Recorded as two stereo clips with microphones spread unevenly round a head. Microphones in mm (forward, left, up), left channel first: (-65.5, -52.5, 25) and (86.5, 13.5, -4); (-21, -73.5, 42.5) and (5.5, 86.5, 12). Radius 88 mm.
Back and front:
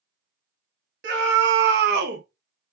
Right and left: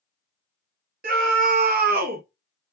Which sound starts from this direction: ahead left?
A scream, at 1.0 s.